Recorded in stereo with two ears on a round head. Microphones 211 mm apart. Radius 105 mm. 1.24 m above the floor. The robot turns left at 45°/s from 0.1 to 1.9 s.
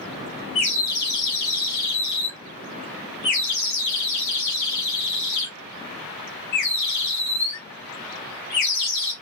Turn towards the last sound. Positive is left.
turn(degrees=95)